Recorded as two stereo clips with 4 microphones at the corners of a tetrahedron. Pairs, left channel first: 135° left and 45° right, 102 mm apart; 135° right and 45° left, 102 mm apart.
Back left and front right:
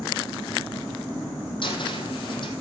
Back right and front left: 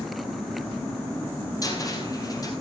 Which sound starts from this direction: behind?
A cupboard door, at 1.6 s.